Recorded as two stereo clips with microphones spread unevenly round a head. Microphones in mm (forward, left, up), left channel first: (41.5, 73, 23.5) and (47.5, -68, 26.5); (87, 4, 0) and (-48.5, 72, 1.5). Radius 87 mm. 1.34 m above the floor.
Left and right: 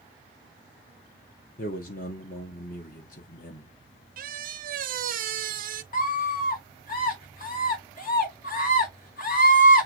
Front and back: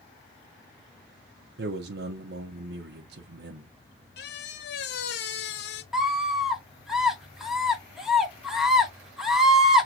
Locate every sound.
1.6 s a man speaking: 135° left, 0.9 m
4.2 s a squeak: 60° right, 0.7 m
5.9 s a scream: 65° left, 2 m